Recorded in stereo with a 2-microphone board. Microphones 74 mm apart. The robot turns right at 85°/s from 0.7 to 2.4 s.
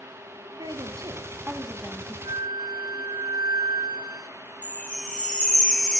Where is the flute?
85° right, 1.0 m.